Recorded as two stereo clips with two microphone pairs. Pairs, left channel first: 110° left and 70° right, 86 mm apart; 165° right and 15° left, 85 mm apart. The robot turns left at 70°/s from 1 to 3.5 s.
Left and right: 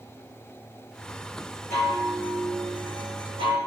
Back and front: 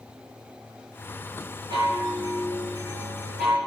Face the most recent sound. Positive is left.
turn(degrees=-85)